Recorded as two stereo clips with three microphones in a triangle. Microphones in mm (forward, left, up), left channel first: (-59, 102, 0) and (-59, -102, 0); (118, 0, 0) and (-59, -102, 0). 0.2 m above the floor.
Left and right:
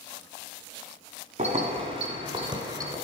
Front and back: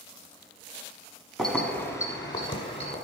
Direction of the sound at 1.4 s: 60° right.